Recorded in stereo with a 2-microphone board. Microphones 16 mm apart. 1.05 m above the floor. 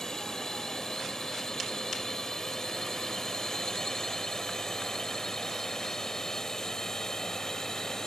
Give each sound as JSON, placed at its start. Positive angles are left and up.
{"t": 0.0, "sound": "a drone", "side_deg": 30}